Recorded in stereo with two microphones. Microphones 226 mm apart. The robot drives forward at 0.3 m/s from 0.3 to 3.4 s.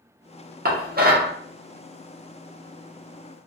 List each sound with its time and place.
0.7 s dishes clattering: 45° right (ahead or behind), 0.8 m; by 1.3 s 40° right (ahead or behind), 0.8 m